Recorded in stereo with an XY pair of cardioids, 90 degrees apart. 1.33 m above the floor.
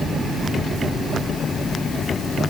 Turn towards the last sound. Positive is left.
No sound to turn to.